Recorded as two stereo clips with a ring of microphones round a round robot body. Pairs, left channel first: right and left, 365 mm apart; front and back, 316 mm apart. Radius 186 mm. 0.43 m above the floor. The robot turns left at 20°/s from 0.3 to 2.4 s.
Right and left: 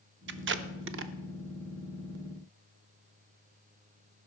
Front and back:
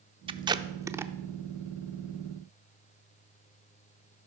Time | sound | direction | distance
0.3 | tape being pulled | 115° left | 0.5 m